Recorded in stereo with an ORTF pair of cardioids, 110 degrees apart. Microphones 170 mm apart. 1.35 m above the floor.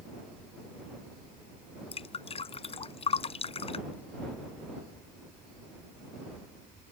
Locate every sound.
1.9 s dripping: 35° left